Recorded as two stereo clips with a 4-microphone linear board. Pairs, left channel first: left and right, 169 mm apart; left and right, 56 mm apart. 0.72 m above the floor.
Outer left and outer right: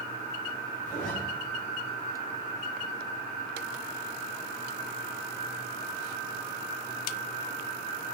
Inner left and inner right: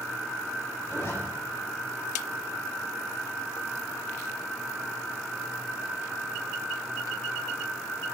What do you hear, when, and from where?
0.8 s a zipper: 50° left (ahead or behind), 3 m